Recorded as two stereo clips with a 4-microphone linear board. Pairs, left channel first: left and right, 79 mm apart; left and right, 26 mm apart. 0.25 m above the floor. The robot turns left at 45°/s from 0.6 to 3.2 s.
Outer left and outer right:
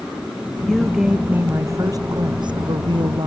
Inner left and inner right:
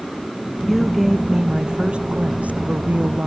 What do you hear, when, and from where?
0.6 s a woman speaking: 10° left; by 3.3 s 105° right